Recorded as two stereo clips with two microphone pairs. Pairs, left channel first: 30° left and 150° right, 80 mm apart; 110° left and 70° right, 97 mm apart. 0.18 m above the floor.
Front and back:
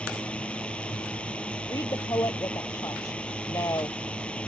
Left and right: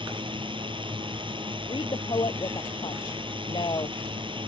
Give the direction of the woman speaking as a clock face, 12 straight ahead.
10 o'clock.